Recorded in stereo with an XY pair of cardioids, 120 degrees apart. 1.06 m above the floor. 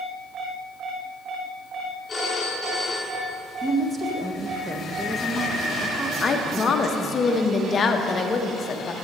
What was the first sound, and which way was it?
A phone ringing, 10° left.